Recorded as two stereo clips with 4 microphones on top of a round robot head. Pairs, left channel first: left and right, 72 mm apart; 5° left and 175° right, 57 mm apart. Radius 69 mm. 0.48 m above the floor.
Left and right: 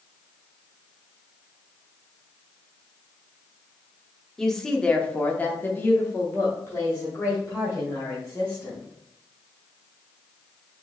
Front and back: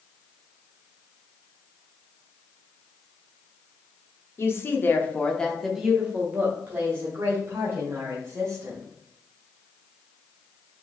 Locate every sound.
4.4 s a woman speaking: 5° left, 1.0 m; by 8.8 s 150° left, 2 m